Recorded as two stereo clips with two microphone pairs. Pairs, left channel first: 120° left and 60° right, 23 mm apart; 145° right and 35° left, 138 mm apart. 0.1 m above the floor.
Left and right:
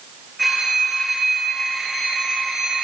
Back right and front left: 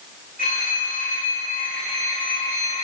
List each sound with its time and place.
0.4 s a phone ringing: 140° right, 4.5 m